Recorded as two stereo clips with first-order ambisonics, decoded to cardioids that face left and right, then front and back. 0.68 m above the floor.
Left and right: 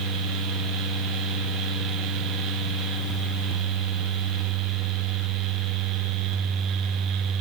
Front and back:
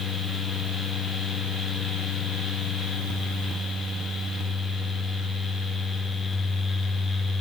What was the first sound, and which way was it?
Only background noise.